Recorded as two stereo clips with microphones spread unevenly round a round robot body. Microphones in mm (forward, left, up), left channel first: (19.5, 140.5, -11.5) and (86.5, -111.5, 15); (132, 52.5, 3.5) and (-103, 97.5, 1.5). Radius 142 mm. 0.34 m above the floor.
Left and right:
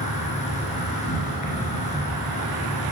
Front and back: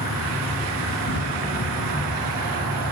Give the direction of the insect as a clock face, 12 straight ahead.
11 o'clock.